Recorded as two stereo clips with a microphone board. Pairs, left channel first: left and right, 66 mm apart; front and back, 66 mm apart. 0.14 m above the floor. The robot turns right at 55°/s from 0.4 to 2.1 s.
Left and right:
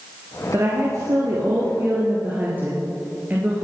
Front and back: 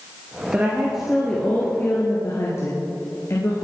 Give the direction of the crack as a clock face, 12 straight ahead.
No crack in this recording.